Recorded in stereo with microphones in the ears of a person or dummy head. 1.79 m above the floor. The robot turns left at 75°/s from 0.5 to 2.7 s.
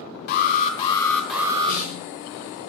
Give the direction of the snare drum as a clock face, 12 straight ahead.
10 o'clock.